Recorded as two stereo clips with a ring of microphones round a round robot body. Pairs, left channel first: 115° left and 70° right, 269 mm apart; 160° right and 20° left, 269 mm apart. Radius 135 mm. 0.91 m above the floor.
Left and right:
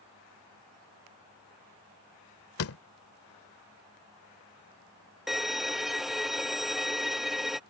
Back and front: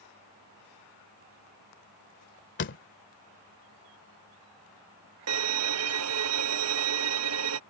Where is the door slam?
150° left.